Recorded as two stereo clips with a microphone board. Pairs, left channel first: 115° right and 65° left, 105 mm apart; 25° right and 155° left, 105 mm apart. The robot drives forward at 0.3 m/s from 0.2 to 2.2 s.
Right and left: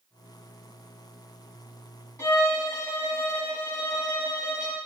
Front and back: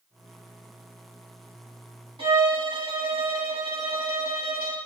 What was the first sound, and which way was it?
A violin, 175° right.